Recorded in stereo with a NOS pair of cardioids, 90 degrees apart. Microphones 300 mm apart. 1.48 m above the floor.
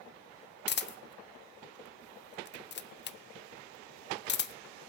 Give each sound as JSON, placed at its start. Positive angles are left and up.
{"t": 0.7, "sound": "a camera shutter", "azimuth_deg": 35, "distance_m": 0.7}